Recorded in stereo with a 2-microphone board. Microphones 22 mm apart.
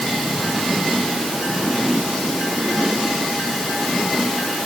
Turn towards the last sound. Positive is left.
No sound to turn to.